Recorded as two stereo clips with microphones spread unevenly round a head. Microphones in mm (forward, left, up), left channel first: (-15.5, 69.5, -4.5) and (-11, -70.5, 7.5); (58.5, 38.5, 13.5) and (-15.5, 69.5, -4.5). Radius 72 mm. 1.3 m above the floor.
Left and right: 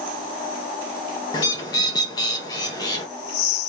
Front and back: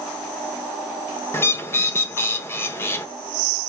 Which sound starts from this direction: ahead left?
A bird, at 1.3 s.